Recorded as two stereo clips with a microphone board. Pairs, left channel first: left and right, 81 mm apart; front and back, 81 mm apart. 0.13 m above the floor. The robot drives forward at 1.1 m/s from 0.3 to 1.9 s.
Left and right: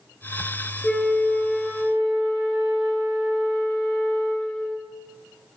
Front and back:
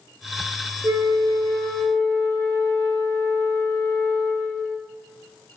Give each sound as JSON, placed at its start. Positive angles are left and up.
{"t": 0.8, "sound": "a flute", "azimuth_deg": 170, "distance_m": 1.0}